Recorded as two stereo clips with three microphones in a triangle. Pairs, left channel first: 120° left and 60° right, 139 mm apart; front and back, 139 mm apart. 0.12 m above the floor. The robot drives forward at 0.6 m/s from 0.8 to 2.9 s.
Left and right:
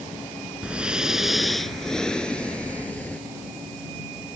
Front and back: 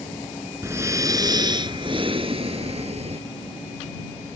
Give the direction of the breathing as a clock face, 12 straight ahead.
5 o'clock.